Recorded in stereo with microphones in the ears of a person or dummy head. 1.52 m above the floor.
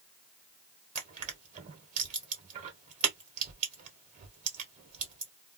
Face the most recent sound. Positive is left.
turn(degrees=-40)  # may be behind; listen again after turning